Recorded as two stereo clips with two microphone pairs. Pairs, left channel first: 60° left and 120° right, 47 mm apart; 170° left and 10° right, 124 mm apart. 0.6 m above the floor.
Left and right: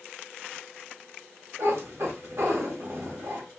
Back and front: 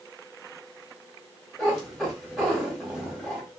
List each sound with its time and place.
1.6 s a cat meowing: 100° right, 1.2 m